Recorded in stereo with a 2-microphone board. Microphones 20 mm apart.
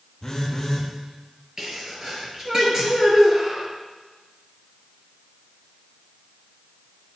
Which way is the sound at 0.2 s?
20° left (ahead or behind).